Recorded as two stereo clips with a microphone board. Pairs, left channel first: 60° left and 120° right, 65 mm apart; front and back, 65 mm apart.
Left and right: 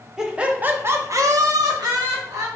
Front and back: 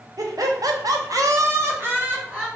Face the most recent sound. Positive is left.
turn(degrees=-105)